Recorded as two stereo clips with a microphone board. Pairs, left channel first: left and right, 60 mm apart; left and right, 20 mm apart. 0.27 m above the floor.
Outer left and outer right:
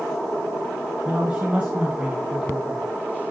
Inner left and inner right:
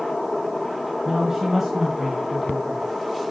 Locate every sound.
1.1 s a man speaking: 20° right (ahead or behind), 3 m